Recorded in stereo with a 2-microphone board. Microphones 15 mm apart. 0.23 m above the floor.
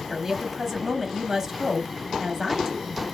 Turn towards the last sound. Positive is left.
turn(degrees=-25)  # may be behind; listen again after turning